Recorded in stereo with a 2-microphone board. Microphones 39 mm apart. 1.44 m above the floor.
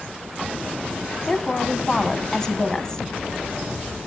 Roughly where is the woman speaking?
Left.